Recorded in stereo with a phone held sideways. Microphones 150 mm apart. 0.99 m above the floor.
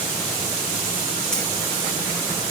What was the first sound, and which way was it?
Keys jangling, 5° left (ahead or behind).